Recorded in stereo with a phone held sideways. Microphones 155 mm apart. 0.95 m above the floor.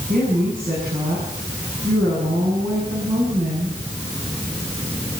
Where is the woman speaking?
60° right (ahead or behind), 9.5 m.